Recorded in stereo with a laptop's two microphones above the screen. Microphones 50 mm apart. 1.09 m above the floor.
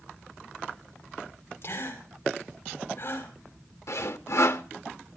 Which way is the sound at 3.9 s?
65° left (ahead or behind).